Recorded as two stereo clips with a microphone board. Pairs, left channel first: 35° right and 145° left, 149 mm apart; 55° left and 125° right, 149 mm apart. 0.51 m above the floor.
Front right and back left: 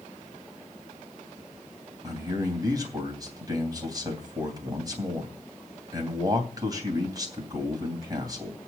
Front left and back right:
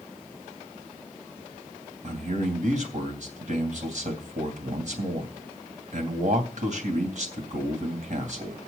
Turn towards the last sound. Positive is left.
turn(degrees=-150)